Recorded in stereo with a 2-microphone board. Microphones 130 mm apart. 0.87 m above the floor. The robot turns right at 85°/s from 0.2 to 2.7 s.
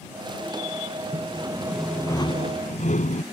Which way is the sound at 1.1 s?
60° right.